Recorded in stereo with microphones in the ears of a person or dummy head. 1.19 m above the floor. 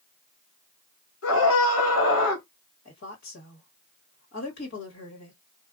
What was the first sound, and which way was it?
A scream, 65° left (ahead or behind).